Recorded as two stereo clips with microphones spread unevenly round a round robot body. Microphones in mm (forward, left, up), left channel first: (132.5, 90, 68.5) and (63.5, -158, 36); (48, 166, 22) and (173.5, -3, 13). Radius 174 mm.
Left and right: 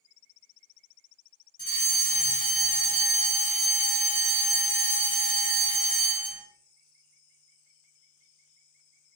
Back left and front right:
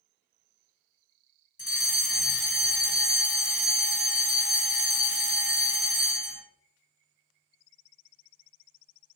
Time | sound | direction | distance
1.6 | a fire alarm | 125° left | 1.4 m